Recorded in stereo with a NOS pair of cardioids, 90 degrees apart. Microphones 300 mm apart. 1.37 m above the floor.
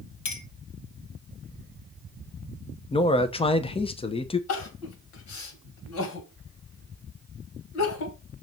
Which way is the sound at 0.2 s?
70° left.